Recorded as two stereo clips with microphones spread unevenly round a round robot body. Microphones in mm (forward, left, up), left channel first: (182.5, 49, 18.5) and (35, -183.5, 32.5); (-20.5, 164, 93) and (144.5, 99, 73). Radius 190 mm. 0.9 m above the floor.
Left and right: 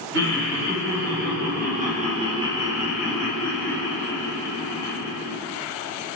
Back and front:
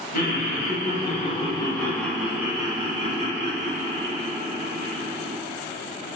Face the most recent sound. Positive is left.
turn(degrees=-10)